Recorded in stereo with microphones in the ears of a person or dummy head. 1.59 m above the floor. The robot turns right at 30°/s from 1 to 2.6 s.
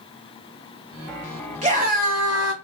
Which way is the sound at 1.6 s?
30° right (ahead or behind).